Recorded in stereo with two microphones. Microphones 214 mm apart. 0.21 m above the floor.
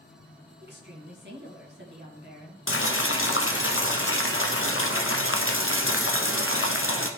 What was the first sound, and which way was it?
A woman speaking, 55° right (ahead or behind).